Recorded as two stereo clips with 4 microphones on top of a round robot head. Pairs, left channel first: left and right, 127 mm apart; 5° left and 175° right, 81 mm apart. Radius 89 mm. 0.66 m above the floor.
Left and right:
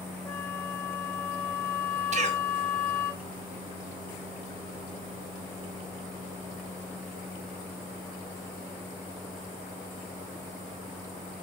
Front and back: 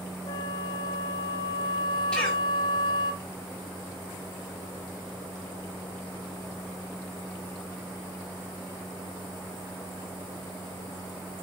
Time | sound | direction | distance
0.2 | a flute | 15° left | 2.5 m
2.1 | a cough | 75° right | 2.5 m